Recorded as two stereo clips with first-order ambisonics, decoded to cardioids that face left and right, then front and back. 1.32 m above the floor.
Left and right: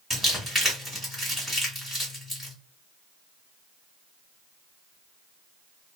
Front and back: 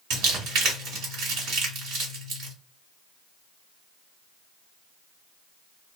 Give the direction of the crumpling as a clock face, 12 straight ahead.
6 o'clock.